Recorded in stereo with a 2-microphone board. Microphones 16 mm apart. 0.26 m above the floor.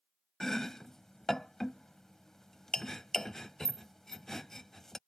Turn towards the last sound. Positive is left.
turn(degrees=25)  # may be behind; listen again after turning